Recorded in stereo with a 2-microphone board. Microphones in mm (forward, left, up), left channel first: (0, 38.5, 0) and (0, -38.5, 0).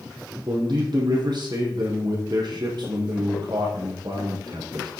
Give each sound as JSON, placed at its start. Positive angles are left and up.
{"t": 0.5, "sound": "a man speaking", "side_deg": -70, "distance_m": 7.0}